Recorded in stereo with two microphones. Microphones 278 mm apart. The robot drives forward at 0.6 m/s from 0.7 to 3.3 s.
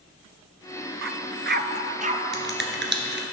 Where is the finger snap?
45° right (ahead or behind), 1.4 m; by 3.2 s 40° right (ahead or behind), 1.5 m.